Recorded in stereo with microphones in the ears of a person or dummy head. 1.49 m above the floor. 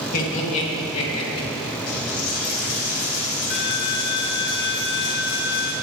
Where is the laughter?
45° left (ahead or behind), 2.5 m; by 1.5 s 30° left (ahead or behind), 3 m.